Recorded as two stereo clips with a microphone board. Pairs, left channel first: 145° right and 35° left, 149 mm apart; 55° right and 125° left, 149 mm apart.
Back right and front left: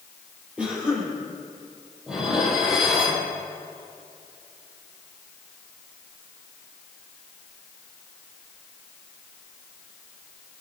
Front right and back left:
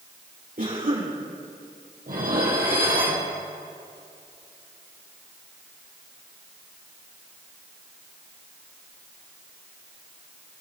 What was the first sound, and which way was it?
A cough, 115° left.